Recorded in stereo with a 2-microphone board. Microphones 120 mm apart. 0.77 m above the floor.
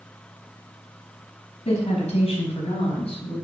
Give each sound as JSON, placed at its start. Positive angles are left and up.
{"t": 1.6, "sound": "a woman speaking", "side_deg": 60, "distance_m": 5.0}